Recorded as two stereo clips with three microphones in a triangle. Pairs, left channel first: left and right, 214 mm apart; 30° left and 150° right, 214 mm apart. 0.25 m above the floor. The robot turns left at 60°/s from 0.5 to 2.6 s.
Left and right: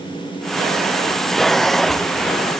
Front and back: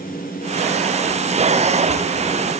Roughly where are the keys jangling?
No keys jangling in this recording.